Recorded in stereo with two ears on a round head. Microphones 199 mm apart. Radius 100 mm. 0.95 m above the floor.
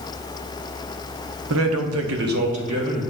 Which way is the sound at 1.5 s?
65° right (ahead or behind).